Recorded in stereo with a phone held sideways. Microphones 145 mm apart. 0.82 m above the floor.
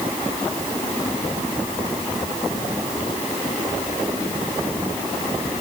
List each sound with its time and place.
Only background noise.